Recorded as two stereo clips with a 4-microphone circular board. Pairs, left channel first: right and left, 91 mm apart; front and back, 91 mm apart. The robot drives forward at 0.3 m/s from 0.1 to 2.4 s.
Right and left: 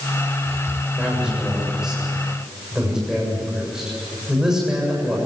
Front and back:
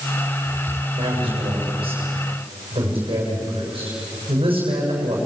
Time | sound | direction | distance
0.9 | a man speaking | 170° left | 6.5 m